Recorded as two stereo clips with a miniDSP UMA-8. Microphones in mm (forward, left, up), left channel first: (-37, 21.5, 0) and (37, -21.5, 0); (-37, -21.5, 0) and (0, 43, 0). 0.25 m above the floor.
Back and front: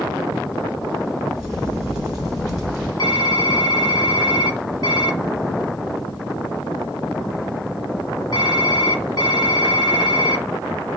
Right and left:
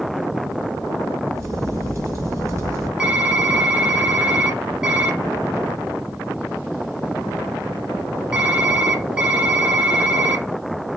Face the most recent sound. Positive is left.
turn(degrees=135)